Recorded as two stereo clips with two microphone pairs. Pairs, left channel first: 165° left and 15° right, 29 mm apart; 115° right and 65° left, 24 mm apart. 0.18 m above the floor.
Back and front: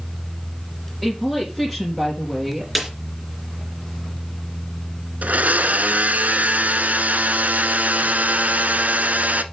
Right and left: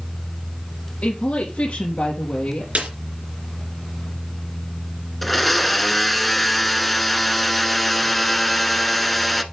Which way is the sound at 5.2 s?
30° right.